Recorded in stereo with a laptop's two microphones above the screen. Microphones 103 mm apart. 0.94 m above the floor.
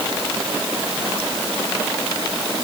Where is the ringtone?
I don't hear a ringtone.